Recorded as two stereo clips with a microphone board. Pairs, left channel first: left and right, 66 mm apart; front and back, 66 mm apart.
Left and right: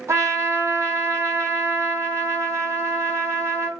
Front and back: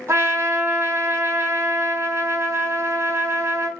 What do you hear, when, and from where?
0.1 s a trumpet: 130° right, 1.1 m